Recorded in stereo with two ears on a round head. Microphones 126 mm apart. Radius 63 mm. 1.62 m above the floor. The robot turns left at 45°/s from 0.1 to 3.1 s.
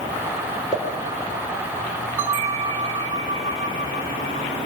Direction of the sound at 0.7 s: 25° left (ahead or behind).